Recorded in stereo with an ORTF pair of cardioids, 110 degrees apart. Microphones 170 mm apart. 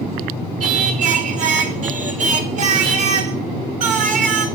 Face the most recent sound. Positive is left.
turn(degrees=-45)